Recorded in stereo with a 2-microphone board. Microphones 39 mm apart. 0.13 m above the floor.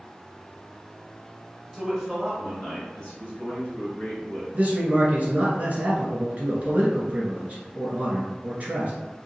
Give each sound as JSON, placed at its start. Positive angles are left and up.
{"t": 1.7, "sound": "a man speaking", "side_deg": -10, "distance_m": 1.7}
{"t": 4.5, "sound": "a man speaking", "side_deg": -40, "distance_m": 1.4}